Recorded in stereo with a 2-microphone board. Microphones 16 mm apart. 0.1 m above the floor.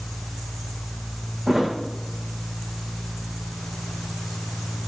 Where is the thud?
45° right (ahead or behind), 3.5 m.